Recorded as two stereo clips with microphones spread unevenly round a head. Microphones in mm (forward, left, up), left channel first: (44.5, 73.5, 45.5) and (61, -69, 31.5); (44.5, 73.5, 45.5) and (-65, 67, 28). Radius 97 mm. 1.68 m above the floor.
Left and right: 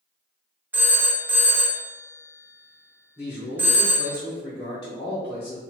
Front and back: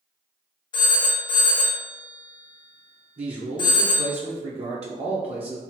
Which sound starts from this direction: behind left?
A man speaking, at 3.2 s.